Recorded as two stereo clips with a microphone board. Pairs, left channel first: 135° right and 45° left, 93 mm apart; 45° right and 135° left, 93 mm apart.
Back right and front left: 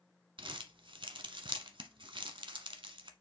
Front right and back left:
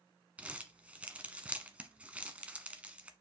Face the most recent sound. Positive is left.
turn(degrees=60)